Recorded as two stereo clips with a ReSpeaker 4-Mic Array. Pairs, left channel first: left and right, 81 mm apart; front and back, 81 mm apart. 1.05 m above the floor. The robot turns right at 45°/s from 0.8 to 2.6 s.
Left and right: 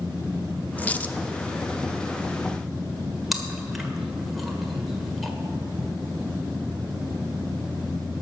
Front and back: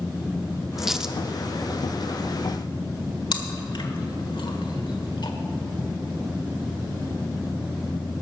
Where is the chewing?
Straight ahead, 1.4 m.